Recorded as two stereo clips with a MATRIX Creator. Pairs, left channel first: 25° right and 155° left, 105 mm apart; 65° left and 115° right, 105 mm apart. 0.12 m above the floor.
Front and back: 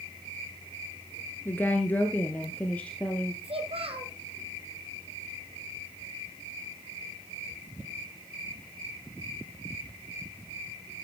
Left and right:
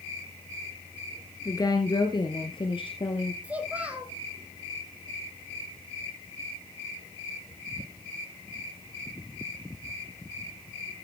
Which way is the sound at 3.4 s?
170° left.